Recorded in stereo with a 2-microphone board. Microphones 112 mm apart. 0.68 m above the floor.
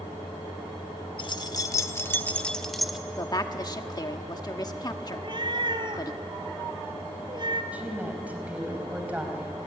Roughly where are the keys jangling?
Left.